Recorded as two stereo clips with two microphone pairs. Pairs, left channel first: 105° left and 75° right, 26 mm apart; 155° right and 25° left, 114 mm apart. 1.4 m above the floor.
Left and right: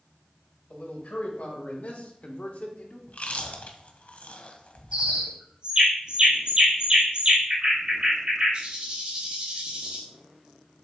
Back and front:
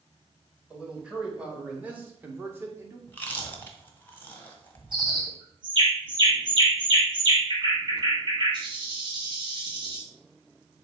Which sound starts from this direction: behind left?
Chewing, at 3.1 s.